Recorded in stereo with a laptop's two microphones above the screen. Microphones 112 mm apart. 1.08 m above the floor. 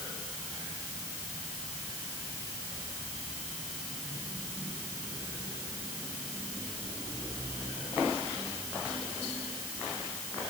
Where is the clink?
No clink in this recording.